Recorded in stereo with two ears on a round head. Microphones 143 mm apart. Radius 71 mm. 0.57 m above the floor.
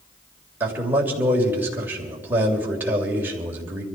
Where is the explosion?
No explosion in this recording.